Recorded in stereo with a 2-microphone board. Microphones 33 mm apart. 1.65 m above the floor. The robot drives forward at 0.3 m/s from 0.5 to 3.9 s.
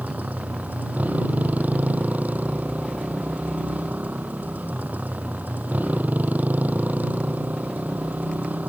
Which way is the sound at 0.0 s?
55° right (ahead or behind).